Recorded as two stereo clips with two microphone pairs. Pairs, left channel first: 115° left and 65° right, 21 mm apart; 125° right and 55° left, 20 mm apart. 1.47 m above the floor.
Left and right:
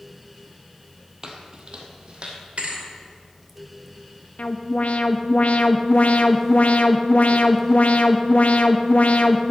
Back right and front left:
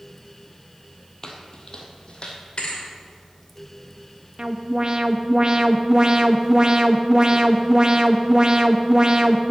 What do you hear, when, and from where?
1.2 s footsteps: 90° right, 1.7 m; by 2.4 s 95° right, 2.5 m
2.6 s a thud: 85° right, 2.5 m
4.4 s an alarm: 105° left, 0.7 m